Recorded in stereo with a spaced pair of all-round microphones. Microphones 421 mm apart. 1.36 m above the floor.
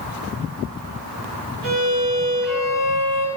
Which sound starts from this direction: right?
A violin, at 1.6 s.